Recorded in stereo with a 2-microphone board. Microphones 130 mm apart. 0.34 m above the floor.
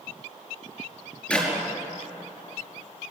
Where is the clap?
5° left (ahead or behind), 4.5 m.